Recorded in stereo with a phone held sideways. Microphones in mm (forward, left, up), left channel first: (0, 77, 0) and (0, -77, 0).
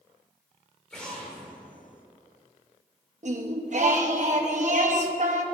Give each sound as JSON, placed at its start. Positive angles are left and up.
{"t": 0.9, "sound": "an explosion", "side_deg": 5, "distance_m": 2.0}
{"t": 3.2, "sound": "singing", "side_deg": -50, "distance_m": 0.9}